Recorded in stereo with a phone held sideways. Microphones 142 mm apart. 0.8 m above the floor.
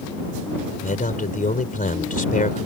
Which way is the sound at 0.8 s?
75° left (ahead or behind).